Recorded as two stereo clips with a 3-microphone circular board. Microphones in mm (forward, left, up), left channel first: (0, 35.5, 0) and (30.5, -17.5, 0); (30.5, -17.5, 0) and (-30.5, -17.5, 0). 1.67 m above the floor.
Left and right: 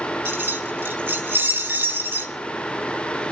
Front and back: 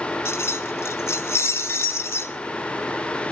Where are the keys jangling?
25° right, 1.3 m.